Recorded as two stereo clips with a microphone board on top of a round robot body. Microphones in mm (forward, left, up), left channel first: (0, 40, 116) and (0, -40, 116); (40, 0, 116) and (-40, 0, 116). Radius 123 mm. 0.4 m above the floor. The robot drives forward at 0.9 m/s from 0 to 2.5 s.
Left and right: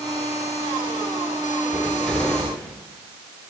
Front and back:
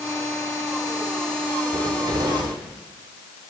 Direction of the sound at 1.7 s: 160° left.